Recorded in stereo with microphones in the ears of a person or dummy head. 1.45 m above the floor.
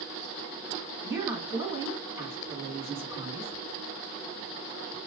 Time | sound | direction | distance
1.0 | a woman speaking | 10° right (ahead or behind) | 3 m